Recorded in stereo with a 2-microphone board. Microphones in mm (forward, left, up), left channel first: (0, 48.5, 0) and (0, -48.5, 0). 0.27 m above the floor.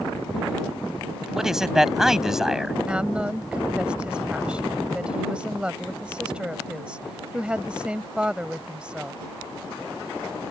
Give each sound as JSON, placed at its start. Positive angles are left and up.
{"t": 1.2, "sound": "a man speaking", "side_deg": -5}
{"t": 2.9, "sound": "a woman speaking", "side_deg": -10}